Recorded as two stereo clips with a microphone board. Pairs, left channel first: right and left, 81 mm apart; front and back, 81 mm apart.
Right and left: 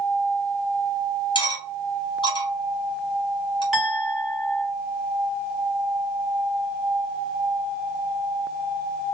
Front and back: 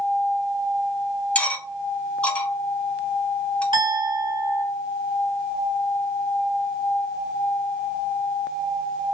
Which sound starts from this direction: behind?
A clink, at 3.7 s.